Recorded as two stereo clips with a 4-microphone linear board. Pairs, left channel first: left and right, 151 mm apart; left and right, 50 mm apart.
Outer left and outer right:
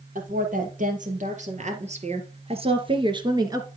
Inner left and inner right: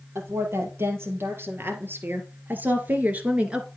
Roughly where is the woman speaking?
Right.